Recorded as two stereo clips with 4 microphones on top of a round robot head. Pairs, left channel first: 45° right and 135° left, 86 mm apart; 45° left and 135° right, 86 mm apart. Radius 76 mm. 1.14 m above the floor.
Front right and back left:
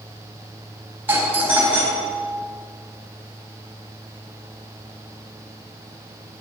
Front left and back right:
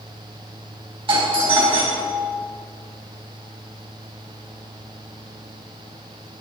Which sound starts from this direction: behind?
A doorbell, at 1.1 s.